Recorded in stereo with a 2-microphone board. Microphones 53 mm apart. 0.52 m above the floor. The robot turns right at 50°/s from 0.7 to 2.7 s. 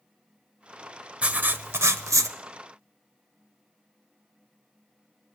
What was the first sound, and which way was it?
Writing, 155° right.